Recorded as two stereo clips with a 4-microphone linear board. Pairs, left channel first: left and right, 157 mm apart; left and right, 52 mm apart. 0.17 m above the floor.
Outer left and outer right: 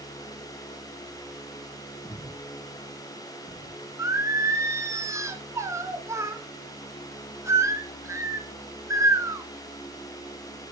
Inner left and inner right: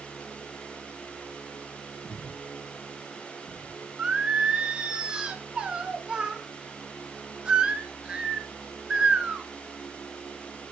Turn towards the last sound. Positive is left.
turn(degrees=-20)  # may be behind; listen again after turning